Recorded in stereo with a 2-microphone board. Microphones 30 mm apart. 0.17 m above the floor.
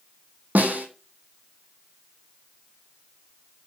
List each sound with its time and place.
0.6 s a snare drum: 70° right (ahead or behind), 1.2 m